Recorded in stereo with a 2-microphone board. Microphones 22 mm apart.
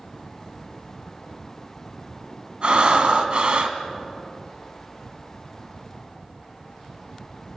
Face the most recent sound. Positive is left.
turn(degrees=-50)  # may be behind; listen again after turning